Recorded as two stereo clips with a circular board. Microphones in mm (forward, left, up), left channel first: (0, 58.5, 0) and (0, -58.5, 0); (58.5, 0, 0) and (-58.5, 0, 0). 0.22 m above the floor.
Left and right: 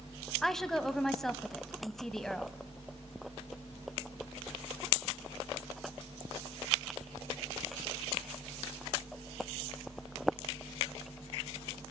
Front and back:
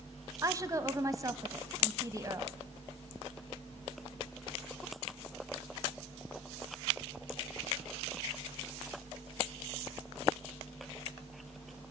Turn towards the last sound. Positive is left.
turn(degrees=175)